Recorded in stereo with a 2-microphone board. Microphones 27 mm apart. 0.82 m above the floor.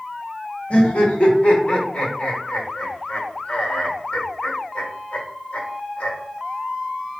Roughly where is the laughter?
Left.